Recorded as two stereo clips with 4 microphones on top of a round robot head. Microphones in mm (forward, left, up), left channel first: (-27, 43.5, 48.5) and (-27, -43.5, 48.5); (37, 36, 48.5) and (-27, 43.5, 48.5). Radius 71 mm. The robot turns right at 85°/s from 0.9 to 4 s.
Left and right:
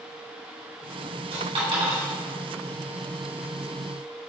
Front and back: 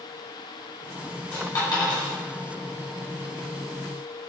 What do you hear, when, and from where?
1.3 s a dropped coin: 75° right, 2 m; by 2.1 s 5° right, 2 m